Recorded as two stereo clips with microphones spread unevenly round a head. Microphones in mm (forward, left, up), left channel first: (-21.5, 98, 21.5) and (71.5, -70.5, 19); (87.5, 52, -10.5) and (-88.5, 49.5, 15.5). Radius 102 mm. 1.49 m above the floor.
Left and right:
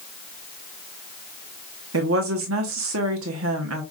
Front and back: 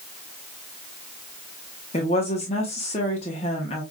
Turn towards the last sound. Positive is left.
turn(degrees=-65)